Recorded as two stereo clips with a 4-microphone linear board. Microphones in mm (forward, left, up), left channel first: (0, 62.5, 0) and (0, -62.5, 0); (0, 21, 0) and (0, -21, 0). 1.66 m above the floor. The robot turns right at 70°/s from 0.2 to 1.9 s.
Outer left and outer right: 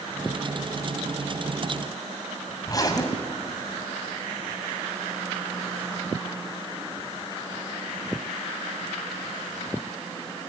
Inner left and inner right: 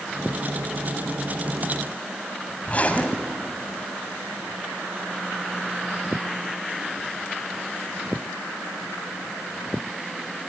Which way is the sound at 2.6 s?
30° left (ahead or behind).